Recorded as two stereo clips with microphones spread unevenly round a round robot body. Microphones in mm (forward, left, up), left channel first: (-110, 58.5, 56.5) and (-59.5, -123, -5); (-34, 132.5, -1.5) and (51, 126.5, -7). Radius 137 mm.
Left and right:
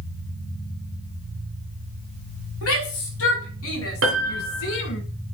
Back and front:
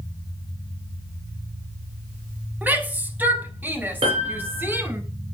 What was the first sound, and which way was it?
A shout, 65° left.